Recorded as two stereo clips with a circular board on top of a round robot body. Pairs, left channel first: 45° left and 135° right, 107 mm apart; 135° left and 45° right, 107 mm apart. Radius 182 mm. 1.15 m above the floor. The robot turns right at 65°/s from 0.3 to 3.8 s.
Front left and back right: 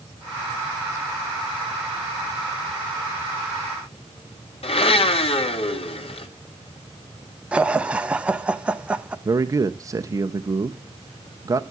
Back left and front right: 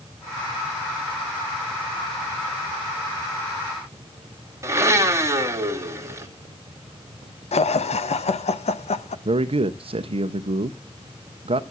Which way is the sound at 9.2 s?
75° right.